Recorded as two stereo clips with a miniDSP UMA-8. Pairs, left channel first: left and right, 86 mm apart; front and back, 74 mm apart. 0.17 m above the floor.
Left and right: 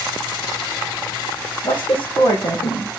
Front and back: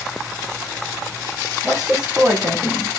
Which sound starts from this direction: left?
A woman speaking, at 1.6 s.